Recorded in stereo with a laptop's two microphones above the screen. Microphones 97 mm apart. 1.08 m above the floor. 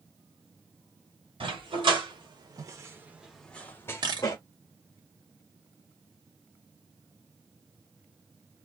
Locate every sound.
1.4 s a dog barking: 65° right (ahead or behind), 1.5 m; by 4.4 s 40° left (ahead or behind), 1.1 m
4.0 s a camera shutter: 45° right (ahead or behind), 1.2 m